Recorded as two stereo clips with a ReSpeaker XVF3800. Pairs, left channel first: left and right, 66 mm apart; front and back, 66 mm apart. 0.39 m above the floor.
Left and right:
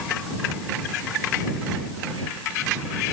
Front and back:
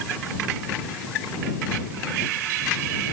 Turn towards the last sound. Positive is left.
No sound to turn to.